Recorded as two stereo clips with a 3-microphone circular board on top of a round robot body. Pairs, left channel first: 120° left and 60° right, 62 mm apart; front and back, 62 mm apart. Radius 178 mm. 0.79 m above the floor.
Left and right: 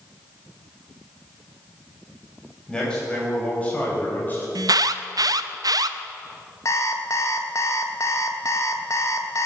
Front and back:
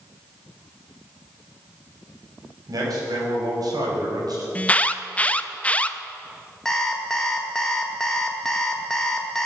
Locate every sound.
2.7 s a man speaking: 160° right, 5.5 m; by 4.5 s straight behind, 4.5 m
4.5 s an alarm: 70° right, 0.7 m
6.7 s an alarm clock: 80° left, 1.2 m